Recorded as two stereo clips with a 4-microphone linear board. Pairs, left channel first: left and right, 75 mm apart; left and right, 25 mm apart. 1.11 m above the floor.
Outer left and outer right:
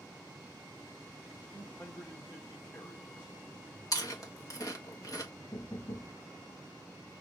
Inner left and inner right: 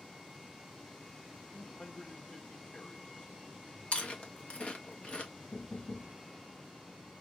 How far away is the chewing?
About 1.6 m.